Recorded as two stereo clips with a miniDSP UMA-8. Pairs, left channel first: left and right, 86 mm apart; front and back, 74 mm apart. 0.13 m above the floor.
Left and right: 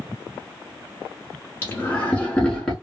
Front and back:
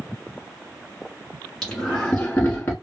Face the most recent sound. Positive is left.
turn(degrees=10)